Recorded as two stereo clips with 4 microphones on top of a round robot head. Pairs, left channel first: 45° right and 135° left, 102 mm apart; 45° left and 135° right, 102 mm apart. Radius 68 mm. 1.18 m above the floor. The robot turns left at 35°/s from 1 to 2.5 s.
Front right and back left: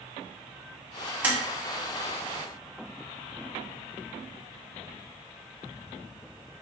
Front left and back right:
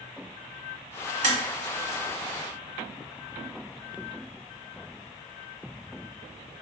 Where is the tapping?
150° right, 1.4 m; by 1.4 s 155° right, 1.4 m.